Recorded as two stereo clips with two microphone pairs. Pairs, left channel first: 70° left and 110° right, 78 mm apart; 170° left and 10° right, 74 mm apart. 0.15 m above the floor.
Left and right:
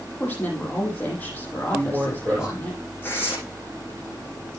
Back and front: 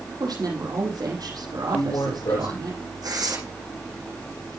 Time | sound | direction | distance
0.2 | a woman speaking | 5° left | 5.5 m
1.7 | a man speaking | 170° left | 8.5 m
3.0 | tearing paper | 10° left | 7.5 m